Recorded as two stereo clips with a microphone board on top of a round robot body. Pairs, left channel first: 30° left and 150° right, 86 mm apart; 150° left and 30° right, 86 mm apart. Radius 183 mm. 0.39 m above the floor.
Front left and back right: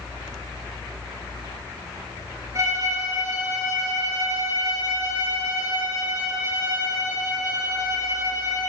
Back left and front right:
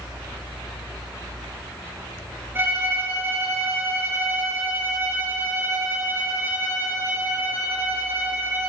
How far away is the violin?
About 5 m.